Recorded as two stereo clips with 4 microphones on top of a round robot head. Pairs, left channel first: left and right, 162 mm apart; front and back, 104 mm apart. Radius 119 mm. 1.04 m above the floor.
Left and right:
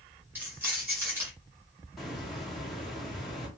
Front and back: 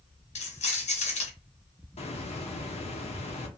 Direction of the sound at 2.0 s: Straight ahead.